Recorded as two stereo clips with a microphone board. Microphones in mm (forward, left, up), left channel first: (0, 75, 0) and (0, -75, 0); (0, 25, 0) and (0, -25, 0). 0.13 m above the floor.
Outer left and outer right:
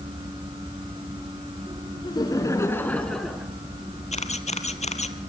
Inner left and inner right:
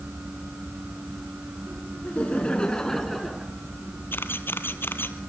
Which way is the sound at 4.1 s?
50° left (ahead or behind).